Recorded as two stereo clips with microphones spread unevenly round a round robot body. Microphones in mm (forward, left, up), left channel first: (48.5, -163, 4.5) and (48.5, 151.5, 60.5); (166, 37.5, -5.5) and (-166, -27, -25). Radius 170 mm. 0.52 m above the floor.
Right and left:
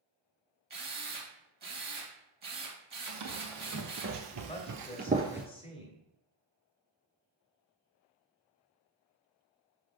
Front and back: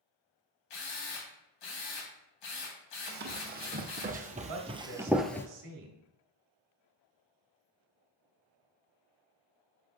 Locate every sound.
0.7 s a drill: 25° left, 2.5 m
3.1 s running footsteps: 125° left, 1.5 m; by 5.5 s 45° left, 0.5 m
4.5 s a woman speaking: 155° right, 1.4 m